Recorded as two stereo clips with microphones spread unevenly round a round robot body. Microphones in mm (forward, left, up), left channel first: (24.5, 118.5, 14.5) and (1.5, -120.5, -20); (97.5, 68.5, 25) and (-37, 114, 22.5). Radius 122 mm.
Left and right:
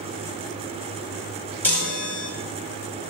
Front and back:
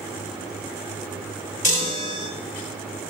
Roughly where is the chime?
Ahead.